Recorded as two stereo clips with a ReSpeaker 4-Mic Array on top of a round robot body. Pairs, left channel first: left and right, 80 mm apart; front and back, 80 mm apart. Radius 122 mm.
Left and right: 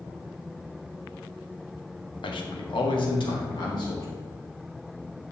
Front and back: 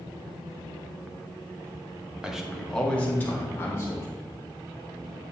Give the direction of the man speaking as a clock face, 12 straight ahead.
9 o'clock.